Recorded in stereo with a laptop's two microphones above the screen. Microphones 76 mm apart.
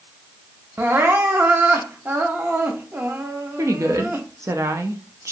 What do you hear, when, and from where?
0.8 s crying: 30° right (ahead or behind), 0.5 m
3.6 s a woman speaking: 40° right (ahead or behind), 0.6 m